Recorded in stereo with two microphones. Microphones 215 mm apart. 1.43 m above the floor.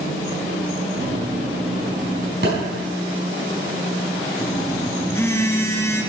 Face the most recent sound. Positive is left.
turn(degrees=10)  # may be behind; listen again after turning